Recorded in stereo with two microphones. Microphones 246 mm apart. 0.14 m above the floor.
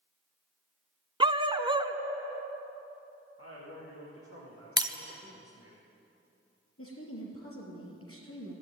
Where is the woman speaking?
60° left (ahead or behind), 3.5 m.